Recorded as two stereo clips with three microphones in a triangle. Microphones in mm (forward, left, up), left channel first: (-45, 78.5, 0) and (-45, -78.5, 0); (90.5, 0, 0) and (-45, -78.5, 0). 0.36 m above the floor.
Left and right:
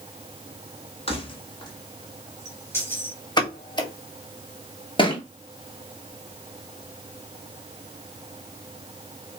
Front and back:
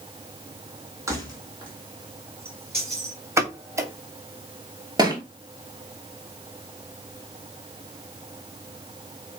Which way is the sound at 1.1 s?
140° left.